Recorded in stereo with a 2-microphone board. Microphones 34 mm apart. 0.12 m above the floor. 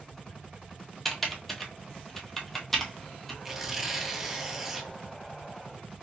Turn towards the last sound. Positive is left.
turn(degrees=-10)  # may be behind; listen again after turning